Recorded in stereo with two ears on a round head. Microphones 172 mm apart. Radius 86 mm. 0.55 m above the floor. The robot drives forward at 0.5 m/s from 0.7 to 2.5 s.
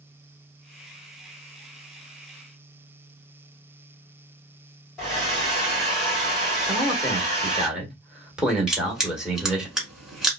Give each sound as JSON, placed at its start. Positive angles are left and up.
{"t": 5.0, "sound": "a hair dryer", "side_deg": 0, "distance_m": 2.0}
{"t": 6.7, "sound": "a man speaking", "side_deg": -5, "distance_m": 1.3}
{"t": 8.7, "sound": "crushing", "side_deg": -5, "distance_m": 1.5}